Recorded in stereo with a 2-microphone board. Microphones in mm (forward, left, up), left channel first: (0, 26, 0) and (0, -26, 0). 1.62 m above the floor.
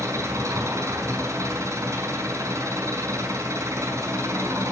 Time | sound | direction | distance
0.0 | an engine running | 75° right (ahead or behind) | 5 m